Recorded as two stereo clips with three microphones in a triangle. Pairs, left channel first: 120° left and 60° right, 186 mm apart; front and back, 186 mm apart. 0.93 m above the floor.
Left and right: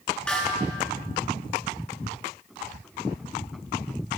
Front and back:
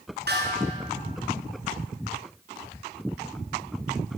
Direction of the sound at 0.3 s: 155° right.